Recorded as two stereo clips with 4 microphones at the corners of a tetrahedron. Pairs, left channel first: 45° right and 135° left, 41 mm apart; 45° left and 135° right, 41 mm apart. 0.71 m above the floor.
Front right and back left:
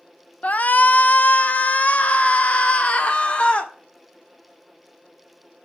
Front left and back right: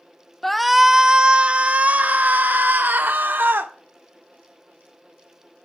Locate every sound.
0.4 s a shout: 35° right, 0.7 m; by 3.7 s 105° right, 1.9 m